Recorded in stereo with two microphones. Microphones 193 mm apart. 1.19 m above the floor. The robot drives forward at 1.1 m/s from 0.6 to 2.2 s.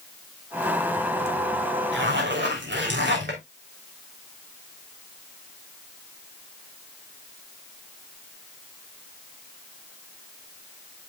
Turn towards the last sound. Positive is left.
turn(degrees=-65)  # may be behind; listen again after turning